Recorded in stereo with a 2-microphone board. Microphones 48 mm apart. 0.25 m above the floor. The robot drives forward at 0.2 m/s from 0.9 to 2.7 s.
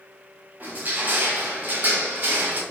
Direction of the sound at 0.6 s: 35° right (ahead or behind).